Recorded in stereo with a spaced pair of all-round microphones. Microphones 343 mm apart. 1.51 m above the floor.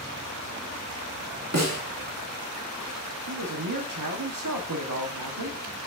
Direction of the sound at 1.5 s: 50° right (ahead or behind).